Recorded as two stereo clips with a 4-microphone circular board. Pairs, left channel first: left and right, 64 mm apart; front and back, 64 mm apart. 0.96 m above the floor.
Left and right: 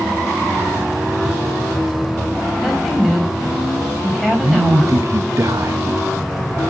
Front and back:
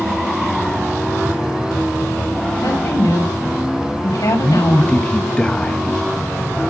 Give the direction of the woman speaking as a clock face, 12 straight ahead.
12 o'clock.